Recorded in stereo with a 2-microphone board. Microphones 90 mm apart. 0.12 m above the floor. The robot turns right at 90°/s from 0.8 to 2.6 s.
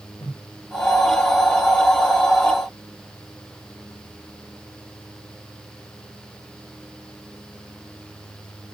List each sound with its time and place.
0.2 s a whoosh: 80° left, 8 m